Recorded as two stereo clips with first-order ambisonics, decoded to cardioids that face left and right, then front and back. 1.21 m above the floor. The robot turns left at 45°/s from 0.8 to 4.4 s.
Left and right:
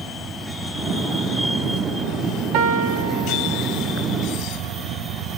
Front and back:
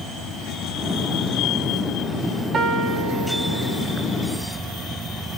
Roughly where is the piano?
Behind right.